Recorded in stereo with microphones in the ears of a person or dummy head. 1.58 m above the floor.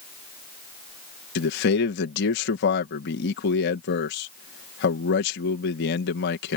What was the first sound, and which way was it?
A man speaking, 65° left (ahead or behind).